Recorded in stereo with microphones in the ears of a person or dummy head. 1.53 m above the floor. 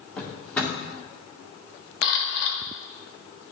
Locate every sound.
0.2 s a drawer: 10° left (ahead or behind), 1.5 m
2.0 s a camera shutter: 60° left (ahead or behind), 1.5 m